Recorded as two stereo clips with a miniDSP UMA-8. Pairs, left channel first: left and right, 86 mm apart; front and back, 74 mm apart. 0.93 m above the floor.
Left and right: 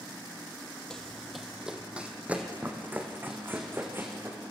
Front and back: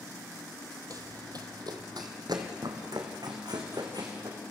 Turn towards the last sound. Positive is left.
turn(degrees=-155)